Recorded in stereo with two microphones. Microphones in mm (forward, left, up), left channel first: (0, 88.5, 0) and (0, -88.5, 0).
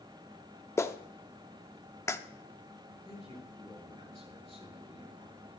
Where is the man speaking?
35° left (ahead or behind), 6 m.